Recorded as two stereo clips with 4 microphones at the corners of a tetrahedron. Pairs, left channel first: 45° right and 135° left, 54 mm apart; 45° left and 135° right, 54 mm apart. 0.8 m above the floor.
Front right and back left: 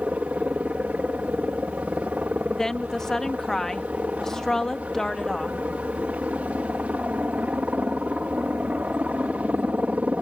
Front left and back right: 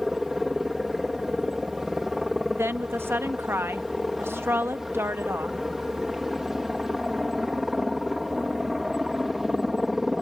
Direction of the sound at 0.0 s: 145° left.